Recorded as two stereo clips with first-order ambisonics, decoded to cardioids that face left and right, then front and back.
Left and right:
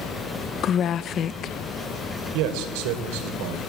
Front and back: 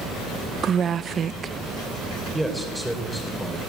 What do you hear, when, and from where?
0.6 s a woman speaking: 130° left, 0.6 m
2.3 s a man speaking: 90° right, 3.5 m